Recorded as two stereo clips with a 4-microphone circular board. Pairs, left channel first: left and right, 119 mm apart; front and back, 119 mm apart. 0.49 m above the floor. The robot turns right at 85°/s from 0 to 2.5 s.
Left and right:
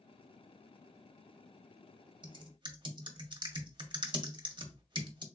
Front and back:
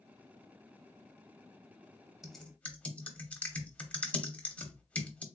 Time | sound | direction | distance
2.2 | typing on a keyboard | 95° right | 0.7 m